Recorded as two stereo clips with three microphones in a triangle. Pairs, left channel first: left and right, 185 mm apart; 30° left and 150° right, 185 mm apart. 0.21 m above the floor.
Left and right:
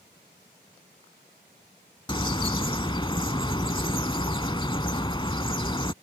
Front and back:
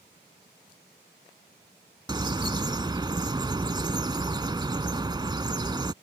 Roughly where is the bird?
Behind left.